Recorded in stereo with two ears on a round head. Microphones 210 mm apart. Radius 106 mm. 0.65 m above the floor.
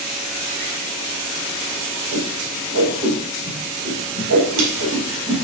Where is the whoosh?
75° right (ahead or behind), 4.5 m.